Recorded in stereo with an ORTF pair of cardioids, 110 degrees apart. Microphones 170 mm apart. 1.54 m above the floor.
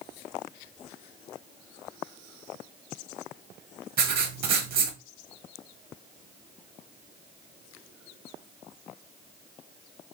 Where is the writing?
60° right, 1.3 m.